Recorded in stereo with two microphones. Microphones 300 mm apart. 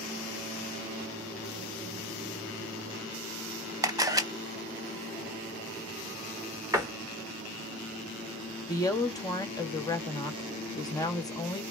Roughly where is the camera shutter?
Centre.